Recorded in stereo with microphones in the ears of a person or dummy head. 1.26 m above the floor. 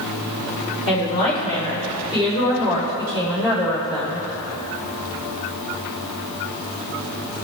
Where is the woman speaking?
30° left (ahead or behind), 3.5 m; by 4.3 s 25° left (ahead or behind), 5 m.